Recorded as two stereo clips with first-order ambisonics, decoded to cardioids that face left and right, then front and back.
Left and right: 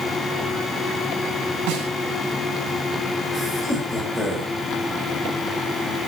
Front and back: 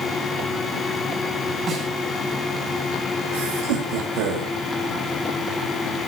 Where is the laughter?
170° left, 8 m.